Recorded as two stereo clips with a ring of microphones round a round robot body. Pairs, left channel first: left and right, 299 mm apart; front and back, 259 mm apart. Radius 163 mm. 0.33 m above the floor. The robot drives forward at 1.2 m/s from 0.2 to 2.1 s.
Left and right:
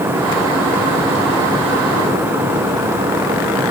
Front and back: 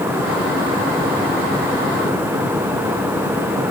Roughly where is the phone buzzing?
I don't hear a phone buzzing.